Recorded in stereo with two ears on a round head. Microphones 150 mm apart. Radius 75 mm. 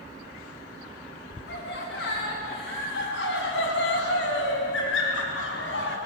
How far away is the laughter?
About 8 m.